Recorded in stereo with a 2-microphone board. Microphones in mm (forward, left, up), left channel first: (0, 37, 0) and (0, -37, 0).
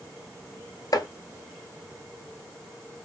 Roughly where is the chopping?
Left.